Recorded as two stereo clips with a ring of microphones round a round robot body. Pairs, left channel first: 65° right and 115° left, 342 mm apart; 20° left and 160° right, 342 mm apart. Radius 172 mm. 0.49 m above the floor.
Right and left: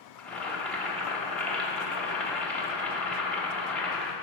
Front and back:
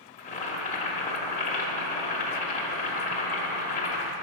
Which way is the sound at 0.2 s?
15° left.